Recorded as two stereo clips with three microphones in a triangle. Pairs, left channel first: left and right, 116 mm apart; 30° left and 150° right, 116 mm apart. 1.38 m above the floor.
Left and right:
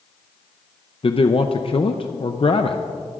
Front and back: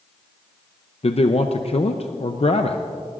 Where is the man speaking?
55° left, 0.6 m.